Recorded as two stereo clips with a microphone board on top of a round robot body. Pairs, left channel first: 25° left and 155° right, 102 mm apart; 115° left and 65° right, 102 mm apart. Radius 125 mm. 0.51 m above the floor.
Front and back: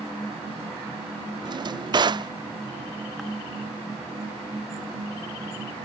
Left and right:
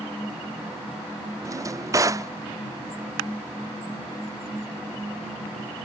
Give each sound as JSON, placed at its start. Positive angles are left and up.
{"t": 1.4, "sound": "a drawer", "azimuth_deg": -120}